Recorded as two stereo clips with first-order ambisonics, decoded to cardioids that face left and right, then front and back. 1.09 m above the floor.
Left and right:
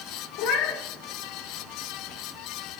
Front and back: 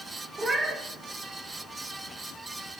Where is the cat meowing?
105° left, 0.9 m.